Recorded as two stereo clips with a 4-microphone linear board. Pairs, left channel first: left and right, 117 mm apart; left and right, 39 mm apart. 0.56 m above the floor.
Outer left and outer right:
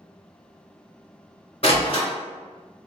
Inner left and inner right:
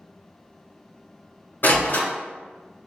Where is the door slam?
60° left (ahead or behind), 1.6 m.